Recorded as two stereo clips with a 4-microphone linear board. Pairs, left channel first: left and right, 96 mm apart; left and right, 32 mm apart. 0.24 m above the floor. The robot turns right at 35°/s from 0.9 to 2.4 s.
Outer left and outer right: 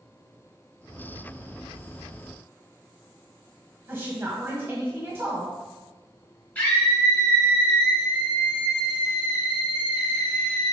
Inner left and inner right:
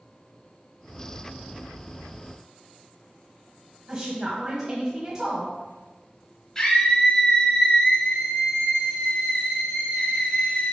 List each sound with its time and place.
3.9 s a woman speaking: 25° right (ahead or behind), 1.5 m
6.5 s a scream: 15° left (ahead or behind), 1.4 m